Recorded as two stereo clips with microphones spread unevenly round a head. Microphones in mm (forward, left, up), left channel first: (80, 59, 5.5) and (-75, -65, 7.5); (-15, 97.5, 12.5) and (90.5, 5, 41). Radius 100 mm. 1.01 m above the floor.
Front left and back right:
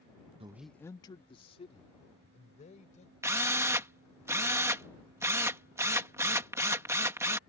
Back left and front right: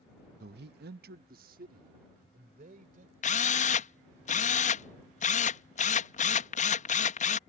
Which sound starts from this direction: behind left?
A drill, at 3.2 s.